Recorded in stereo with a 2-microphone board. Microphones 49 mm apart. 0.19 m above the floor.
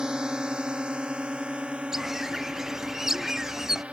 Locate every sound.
0.0 s a drone: 15° right (ahead or behind); by 3.9 s 25° right (ahead or behind)
1.9 s a bird: 10° right (ahead or behind)